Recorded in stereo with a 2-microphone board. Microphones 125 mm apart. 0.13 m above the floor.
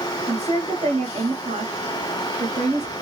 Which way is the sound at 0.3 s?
55° right (ahead or behind).